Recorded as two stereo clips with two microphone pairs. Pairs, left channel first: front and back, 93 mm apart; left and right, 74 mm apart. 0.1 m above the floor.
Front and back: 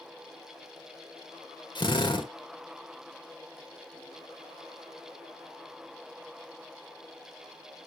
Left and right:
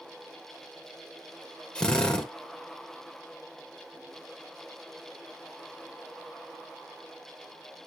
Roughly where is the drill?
Ahead.